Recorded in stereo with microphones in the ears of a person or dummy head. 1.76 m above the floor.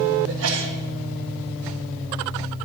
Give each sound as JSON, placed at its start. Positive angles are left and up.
{"t": 0.3, "sound": "a sneeze", "side_deg": -75, "distance_m": 1.8}